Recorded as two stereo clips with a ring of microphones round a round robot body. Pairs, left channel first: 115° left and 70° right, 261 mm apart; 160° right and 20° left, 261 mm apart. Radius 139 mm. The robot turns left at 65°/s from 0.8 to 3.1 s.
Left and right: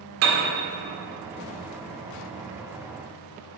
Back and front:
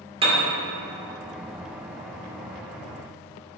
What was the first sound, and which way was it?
A piano, 45° right.